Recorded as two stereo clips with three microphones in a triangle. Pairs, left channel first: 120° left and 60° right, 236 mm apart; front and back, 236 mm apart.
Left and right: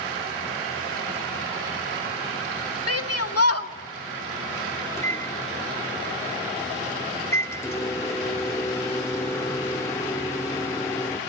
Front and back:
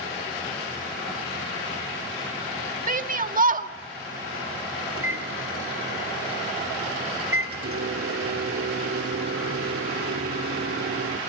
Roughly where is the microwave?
Behind.